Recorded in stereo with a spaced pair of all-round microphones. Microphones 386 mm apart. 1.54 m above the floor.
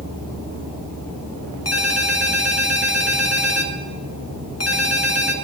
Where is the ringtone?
40° left (ahead or behind), 1.2 m.